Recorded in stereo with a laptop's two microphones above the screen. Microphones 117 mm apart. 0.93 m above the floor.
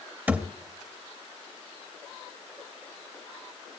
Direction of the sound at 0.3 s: 15° right (ahead or behind).